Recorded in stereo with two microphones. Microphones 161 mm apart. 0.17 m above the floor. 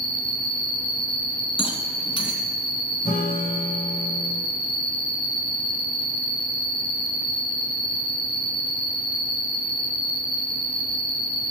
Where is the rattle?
35° left (ahead or behind), 2.0 m.